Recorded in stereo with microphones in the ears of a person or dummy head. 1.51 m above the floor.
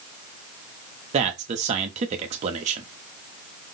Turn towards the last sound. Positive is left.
turn(degrees=-35)  # may be behind; listen again after turning